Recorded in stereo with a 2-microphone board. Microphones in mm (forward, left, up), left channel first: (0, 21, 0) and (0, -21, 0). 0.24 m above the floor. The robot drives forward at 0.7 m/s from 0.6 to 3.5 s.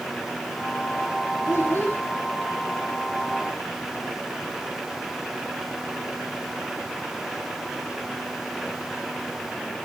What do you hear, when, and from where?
1.5 s a child speaking: 60° left (ahead or behind), 6 m